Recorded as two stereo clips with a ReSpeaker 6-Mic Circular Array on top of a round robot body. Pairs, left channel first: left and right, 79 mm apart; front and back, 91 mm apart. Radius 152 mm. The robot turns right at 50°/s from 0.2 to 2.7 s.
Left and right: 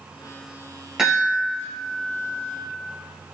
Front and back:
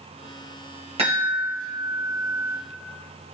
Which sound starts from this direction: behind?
A chime, at 1.0 s.